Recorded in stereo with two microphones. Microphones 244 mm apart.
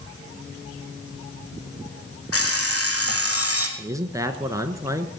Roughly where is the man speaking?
Centre.